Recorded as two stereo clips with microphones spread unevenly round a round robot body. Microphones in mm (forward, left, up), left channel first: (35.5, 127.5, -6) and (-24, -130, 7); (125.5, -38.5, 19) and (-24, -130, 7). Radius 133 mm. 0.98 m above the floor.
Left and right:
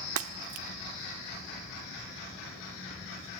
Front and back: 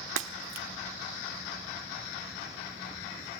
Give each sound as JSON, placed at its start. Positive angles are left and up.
{"t": 0.2, "sound": "breaking glass", "azimuth_deg": -140, "distance_m": 1.2}